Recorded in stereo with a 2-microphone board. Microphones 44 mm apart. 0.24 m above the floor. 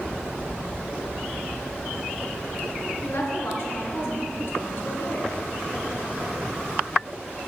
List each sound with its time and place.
3.0 s a woman speaking: 60° left (ahead or behind), 3 m